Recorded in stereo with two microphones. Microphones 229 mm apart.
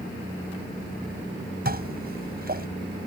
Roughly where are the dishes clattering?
Right.